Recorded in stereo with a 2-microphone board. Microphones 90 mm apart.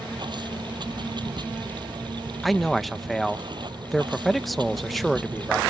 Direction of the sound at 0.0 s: 55° right (ahead or behind).